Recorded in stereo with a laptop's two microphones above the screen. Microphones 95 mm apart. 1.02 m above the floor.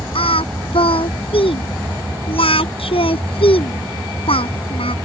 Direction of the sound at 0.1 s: 80° left.